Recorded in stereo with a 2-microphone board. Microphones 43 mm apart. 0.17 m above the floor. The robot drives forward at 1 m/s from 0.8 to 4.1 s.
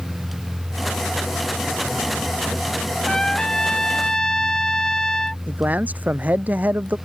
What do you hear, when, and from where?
3.1 s a trumpet: 15° left (ahead or behind)
5.5 s a man speaking: 40° right (ahead or behind)